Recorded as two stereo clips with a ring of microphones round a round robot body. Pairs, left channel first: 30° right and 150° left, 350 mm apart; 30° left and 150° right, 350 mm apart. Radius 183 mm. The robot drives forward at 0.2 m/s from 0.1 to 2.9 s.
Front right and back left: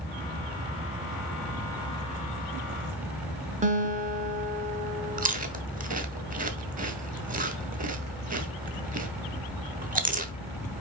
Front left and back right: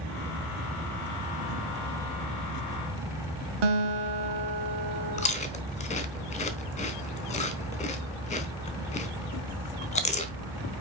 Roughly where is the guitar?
Behind right.